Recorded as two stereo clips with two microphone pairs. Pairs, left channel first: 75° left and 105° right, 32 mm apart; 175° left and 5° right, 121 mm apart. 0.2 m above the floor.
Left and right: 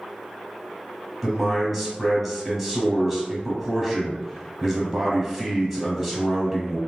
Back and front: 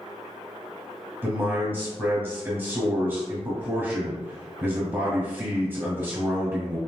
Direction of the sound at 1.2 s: 25° right.